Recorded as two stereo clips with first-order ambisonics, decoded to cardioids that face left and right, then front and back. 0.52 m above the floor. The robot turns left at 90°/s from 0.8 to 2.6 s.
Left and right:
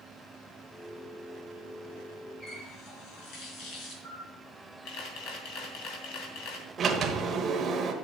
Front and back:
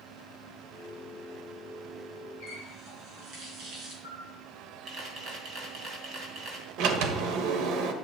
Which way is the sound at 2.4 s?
145° left.